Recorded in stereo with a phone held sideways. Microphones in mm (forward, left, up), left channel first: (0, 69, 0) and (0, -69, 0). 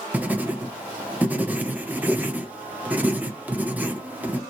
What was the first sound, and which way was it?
Writing, 10° right (ahead or behind).